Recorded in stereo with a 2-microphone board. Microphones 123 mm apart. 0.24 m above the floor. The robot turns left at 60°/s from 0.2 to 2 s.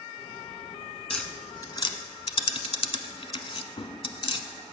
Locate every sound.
1.1 s tapping: centre (ahead or behind), 1.0 m; by 4.5 s 50° left (ahead or behind), 1.0 m